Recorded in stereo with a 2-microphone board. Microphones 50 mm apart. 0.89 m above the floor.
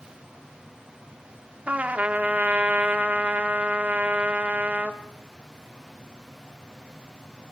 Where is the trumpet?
30° right (ahead or behind), 1.3 m.